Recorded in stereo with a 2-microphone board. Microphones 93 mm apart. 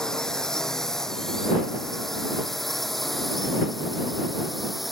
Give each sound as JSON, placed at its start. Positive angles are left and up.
{"t": 0.0, "sound": "a drone", "side_deg": 5}